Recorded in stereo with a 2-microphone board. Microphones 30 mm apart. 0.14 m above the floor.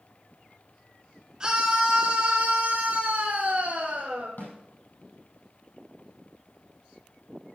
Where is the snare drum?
65° left (ahead or behind), 5 m.